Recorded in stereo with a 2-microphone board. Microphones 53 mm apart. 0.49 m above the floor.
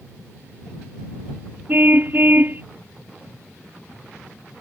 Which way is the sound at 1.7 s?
35° right (ahead or behind).